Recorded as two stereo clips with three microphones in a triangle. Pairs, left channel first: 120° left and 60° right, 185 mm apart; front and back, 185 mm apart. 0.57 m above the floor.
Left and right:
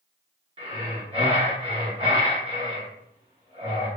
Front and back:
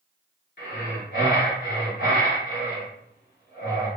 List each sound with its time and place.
0.6 s breathing: 5° right, 1.6 m